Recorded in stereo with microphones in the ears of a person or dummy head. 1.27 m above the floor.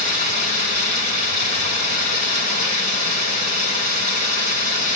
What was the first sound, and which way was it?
Running water, 55° right (ahead or behind).